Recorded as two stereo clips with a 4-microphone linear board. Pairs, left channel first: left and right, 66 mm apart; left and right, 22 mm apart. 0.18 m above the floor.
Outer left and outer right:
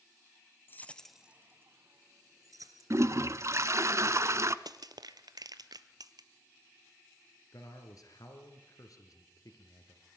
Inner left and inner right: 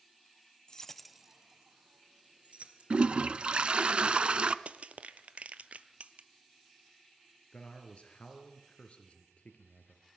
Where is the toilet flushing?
50° right (ahead or behind), 0.6 m.